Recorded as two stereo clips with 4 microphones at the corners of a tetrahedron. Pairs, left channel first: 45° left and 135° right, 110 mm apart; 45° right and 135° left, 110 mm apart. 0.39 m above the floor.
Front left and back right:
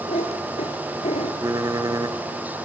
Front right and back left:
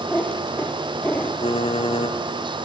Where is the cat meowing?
35° left, 3 m.